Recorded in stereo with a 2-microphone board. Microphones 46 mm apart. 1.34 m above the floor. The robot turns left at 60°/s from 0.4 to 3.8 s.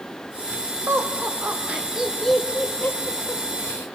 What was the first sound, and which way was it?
Laughter, 80° right.